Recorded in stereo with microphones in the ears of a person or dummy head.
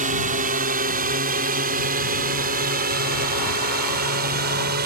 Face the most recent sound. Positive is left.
turn(degrees=-50)  # may be behind; listen again after turning